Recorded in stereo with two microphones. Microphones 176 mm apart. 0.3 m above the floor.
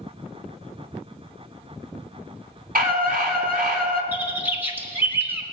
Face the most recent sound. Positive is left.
turn(degrees=-10)  # may be behind; listen again after turning